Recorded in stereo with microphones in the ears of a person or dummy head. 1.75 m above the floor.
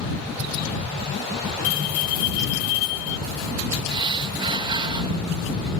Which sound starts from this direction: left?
A bell, at 1.6 s.